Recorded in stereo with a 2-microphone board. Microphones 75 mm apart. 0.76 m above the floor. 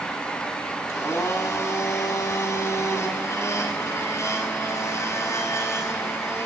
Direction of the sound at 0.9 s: 40° left (ahead or behind).